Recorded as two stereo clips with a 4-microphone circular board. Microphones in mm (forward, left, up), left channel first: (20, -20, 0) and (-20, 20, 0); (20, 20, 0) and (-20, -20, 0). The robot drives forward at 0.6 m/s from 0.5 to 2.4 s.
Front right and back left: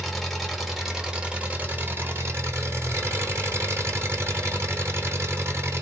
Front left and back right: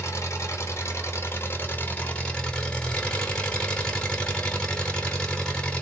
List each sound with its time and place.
0.0 s an engine running: 45° left, 1.3 m; by 5.8 s 115° left, 1.1 m